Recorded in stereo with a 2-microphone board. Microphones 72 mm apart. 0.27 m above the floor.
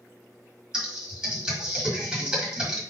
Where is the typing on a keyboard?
10° right (ahead or behind), 1.5 m.